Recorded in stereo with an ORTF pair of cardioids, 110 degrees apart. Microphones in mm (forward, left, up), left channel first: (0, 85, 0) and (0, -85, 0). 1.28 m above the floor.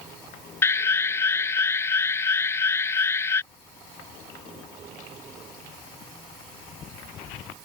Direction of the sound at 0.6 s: 15° left.